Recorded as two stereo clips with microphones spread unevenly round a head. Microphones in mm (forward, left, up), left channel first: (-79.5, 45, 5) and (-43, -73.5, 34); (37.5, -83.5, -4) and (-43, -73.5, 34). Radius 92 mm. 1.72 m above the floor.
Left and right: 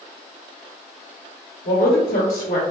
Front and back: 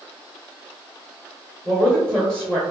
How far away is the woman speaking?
About 1.1 m.